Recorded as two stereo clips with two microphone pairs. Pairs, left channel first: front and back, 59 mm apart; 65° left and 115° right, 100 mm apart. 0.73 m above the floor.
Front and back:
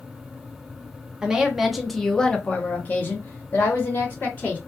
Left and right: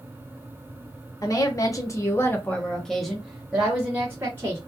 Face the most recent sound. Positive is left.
turn(degrees=-45)